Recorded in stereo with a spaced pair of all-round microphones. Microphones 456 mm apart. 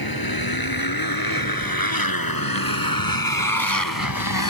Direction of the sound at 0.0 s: 50° left (ahead or behind).